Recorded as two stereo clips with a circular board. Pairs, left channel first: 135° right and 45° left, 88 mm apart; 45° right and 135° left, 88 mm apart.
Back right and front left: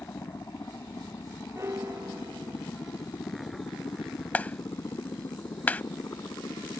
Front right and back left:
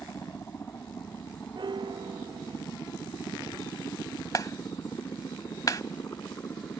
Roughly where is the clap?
Right.